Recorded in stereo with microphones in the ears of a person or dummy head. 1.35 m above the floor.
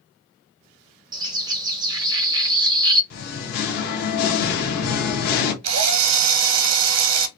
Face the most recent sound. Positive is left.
turn(degrees=-85)